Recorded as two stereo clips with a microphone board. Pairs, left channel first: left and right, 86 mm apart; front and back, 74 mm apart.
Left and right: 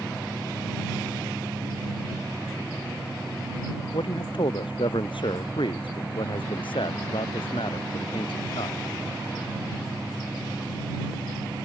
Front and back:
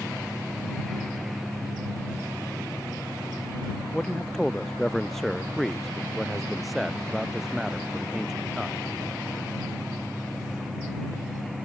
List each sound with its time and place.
3.9 s a man speaking: 85° left; by 8.8 s 100° left